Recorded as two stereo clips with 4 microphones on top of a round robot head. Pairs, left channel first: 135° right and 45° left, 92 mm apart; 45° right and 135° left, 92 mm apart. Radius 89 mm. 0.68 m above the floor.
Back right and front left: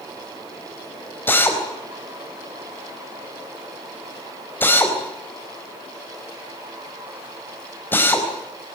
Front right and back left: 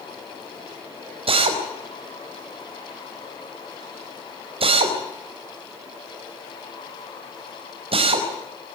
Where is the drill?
155° left, 4.5 m.